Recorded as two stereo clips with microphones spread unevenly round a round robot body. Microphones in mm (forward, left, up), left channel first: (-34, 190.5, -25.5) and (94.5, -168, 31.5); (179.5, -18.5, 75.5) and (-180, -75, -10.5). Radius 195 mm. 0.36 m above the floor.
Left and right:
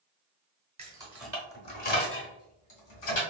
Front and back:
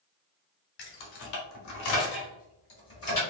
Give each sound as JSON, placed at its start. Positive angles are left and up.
{"t": 0.8, "sound": "keys jangling", "azimuth_deg": 10, "distance_m": 1.1}